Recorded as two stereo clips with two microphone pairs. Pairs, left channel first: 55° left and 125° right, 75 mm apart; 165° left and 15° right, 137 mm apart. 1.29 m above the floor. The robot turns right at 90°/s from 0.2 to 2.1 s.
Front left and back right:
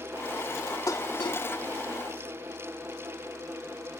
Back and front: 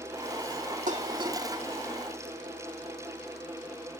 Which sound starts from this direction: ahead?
Dishes clattering, at 0.9 s.